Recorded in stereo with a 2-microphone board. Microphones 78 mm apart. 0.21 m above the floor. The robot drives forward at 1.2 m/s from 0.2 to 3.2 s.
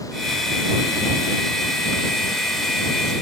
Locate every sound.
Only background noise.